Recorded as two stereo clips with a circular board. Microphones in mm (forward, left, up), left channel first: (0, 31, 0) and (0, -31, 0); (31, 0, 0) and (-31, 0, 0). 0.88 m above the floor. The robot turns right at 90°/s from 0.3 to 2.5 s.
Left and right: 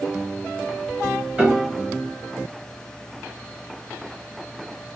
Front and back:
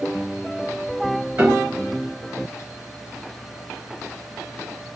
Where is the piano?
145° right, 1.2 m; by 1.8 s 105° right, 1.2 m.